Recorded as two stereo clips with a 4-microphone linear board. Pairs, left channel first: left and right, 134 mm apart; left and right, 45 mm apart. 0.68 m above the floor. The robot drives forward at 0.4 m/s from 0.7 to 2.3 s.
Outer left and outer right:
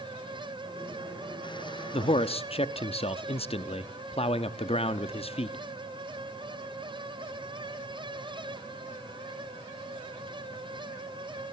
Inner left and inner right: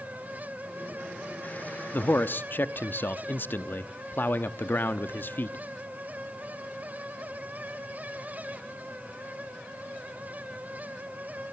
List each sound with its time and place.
1.9 s a man speaking: 50° left (ahead or behind), 0.8 m; by 5.6 s 45° left (ahead or behind), 0.8 m